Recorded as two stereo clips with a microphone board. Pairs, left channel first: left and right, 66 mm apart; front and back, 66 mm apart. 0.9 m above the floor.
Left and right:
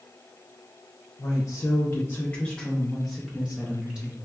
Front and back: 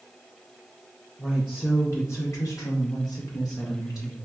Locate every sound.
1.2 s a woman speaking: 85° left, 0.8 m; by 4.2 s 15° right, 1.6 m